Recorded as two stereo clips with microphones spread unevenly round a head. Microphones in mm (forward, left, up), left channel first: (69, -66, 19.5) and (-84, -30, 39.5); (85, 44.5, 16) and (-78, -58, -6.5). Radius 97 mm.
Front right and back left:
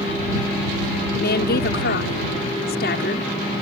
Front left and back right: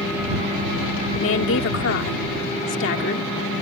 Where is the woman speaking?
10° left.